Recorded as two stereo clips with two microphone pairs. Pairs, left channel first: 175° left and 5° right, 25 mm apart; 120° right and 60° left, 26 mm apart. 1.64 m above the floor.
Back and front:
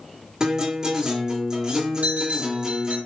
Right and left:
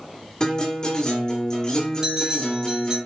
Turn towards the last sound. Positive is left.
turn(degrees=-10)